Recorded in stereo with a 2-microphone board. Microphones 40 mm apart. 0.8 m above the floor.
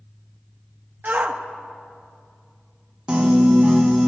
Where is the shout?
45° right (ahead or behind), 0.9 m.